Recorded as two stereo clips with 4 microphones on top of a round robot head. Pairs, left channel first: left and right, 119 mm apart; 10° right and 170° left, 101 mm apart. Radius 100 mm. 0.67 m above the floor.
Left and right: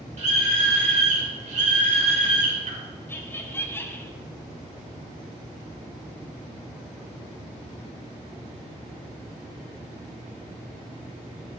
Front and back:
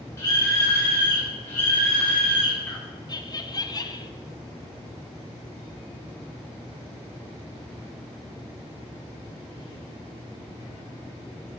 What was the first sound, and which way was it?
A scream, 70° right.